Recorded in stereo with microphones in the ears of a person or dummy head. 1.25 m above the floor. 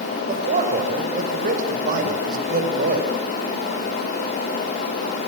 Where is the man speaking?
55° right (ahead or behind), 7 m.